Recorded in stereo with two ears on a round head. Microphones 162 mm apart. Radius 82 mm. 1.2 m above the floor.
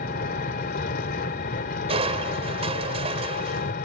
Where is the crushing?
35° right (ahead or behind).